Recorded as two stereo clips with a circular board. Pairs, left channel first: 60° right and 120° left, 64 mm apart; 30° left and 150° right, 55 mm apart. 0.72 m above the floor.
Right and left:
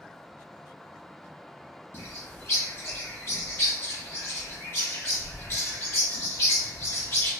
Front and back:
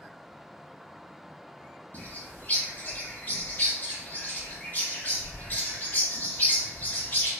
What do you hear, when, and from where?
1.9 s a bird: 10° right, 1.4 m